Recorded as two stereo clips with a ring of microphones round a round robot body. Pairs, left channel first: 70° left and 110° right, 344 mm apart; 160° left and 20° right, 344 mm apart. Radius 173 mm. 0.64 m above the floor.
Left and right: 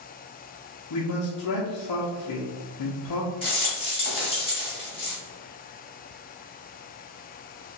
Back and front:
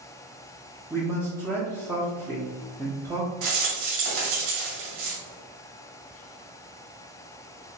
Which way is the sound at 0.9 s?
60° left.